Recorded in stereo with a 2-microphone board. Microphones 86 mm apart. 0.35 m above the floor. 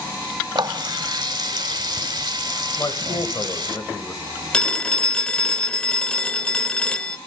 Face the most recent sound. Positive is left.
turn(degrees=10)  # may be behind; listen again after turning